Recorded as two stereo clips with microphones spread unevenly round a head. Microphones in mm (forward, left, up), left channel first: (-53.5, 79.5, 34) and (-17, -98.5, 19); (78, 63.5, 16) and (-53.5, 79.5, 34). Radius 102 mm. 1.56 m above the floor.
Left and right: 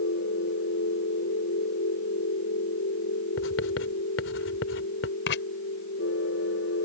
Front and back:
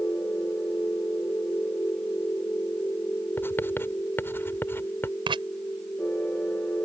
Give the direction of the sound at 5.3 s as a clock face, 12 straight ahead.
8 o'clock.